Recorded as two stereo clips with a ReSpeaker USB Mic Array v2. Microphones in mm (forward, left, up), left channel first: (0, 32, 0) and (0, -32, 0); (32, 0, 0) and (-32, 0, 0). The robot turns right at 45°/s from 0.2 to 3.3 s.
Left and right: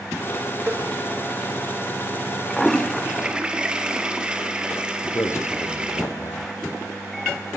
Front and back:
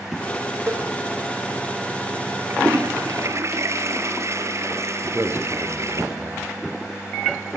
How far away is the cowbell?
About 4 m.